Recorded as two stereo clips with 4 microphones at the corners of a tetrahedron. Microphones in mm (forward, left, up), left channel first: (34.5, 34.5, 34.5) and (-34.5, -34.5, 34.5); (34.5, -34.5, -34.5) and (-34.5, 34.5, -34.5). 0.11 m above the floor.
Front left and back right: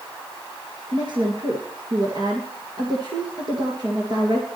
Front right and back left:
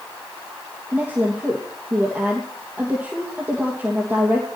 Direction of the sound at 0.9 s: 160° right.